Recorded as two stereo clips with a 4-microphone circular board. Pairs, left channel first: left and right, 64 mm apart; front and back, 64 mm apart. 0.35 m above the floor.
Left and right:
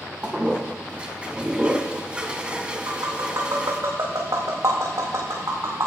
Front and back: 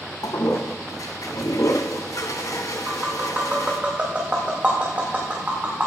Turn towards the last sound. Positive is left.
turn(degrees=-115)